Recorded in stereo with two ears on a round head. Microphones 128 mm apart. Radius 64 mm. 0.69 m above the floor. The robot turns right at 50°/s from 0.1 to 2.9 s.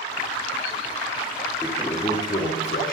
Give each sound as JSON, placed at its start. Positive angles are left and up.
{"t": 1.6, "sound": "a toilet flushing", "azimuth_deg": -5, "distance_m": 6.5}